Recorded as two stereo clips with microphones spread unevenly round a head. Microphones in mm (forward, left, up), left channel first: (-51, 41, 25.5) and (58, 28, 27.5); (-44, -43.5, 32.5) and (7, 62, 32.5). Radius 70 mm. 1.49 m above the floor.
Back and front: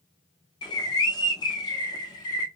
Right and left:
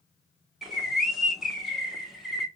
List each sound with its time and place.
0.6 s a bird: 150° left, 0.8 m